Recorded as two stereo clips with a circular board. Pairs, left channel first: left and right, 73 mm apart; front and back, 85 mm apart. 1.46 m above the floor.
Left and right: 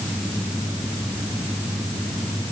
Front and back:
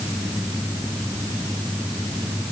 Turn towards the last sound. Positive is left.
No sound to turn to.